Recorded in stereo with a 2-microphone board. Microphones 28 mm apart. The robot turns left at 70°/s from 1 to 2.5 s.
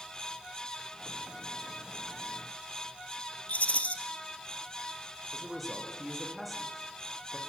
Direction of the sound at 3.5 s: 55° left (ahead or behind).